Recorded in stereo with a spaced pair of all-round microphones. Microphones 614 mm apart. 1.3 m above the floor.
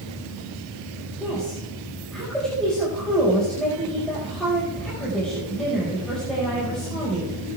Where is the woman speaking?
Centre (ahead or behind), 5 m.